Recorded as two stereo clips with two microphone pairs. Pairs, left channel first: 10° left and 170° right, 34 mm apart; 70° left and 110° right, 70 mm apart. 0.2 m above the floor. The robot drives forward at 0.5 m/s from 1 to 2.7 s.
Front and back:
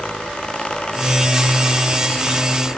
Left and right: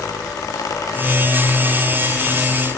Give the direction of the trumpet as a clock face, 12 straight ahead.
No trumpet in this recording.